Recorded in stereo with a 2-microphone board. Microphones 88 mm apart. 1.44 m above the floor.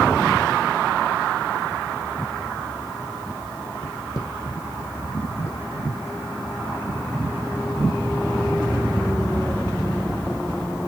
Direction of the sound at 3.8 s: 45° left (ahead or behind).